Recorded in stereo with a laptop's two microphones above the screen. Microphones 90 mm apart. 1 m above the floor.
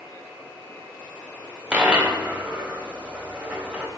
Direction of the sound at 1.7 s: 15° right (ahead or behind).